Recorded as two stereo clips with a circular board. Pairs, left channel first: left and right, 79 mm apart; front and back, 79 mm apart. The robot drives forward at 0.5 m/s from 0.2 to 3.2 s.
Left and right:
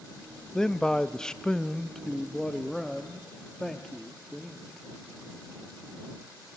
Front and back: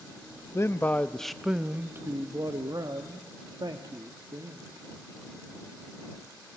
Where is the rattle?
No rattle in this recording.